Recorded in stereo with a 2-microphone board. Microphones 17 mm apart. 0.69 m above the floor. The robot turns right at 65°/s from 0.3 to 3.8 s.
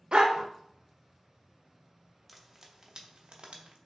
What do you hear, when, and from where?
0.1 s a dog barking: 65° right (ahead or behind), 0.5 m; by 0.5 s 60° right (ahead or behind), 0.5 m
2.3 s frying: 5° right (ahead or behind), 0.5 m; by 3.8 s 75° right (ahead or behind), 0.5 m